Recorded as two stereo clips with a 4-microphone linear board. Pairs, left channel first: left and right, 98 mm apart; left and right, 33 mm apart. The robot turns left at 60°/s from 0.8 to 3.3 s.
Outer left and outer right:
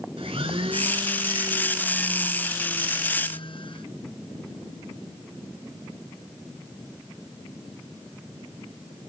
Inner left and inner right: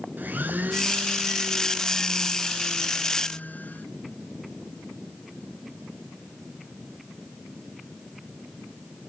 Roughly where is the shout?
No shout in this recording.